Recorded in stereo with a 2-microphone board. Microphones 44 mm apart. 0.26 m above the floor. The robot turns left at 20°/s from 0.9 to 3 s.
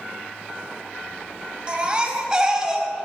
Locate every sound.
1.7 s a baby crying: 25° right (ahead or behind), 1.3 m; by 2.9 s 10° right (ahead or behind), 1.3 m